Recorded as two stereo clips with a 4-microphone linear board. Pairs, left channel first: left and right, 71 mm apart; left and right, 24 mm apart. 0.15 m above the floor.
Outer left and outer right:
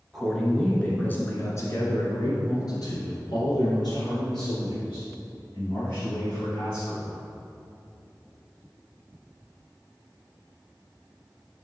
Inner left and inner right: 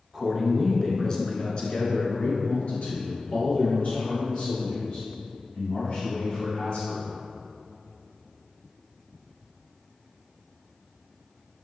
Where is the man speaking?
Centre (ahead or behind), 1.7 m; by 7.2 s 60° left (ahead or behind), 5.5 m.